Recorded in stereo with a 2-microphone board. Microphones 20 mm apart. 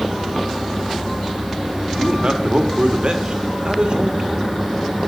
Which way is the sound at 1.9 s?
50° right (ahead or behind).